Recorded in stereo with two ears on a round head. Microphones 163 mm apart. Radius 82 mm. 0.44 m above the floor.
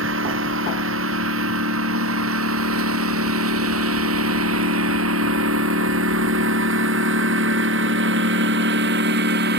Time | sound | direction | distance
0.0 | a lawn mower | 75° right (ahead or behind) | ?